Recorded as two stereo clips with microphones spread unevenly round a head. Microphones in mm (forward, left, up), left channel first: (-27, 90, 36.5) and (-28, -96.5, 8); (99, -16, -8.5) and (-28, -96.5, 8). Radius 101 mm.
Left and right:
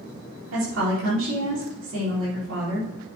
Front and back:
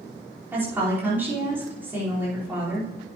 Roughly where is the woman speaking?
Right.